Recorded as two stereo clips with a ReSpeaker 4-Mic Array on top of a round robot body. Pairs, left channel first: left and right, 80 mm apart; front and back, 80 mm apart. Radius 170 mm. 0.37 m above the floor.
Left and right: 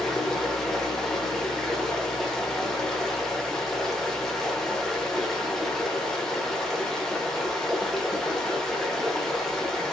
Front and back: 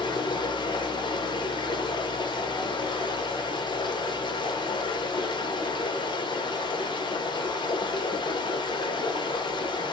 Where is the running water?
5° left, 0.9 m.